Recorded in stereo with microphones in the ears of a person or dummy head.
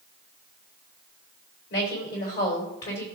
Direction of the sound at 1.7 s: 55° left (ahead or behind).